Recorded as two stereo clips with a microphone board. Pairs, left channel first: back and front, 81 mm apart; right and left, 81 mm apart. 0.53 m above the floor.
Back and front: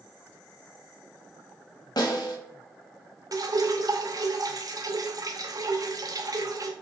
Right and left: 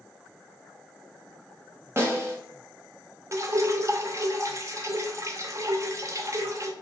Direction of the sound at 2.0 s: 145° left.